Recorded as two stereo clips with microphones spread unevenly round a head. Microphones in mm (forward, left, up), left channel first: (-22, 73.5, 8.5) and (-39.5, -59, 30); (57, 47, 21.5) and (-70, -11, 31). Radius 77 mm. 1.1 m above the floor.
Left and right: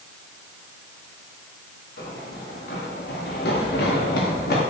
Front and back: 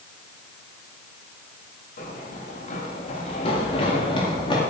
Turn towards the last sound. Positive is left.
turn(degrees=80)